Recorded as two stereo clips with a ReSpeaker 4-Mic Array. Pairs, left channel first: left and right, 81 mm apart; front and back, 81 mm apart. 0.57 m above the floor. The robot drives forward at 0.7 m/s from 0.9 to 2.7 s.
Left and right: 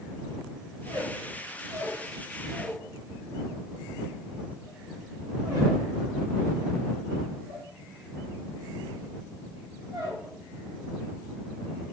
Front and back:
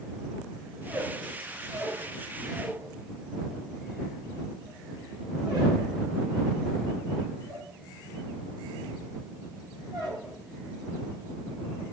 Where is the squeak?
105° right, 1.7 m; by 11.8 s 140° right, 2.5 m.